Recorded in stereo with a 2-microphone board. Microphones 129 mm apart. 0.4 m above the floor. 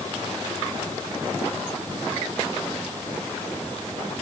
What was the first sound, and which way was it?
Only background noise.